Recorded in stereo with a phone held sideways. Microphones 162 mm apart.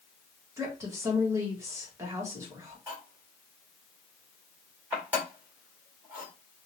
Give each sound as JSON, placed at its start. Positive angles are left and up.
{"t": 0.6, "sound": "a woman speaking", "side_deg": -20, "distance_m": 1.8}
{"t": 2.9, "sound": "cutlery clinking", "side_deg": -10, "distance_m": 2.0}